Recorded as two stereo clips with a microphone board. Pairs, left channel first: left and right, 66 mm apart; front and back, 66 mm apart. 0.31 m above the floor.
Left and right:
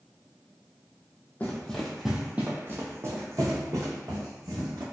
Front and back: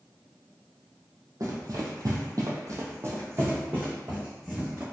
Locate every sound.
1.4 s running footsteps: 155° left, 0.7 m; by 4.8 s 110° right, 1.7 m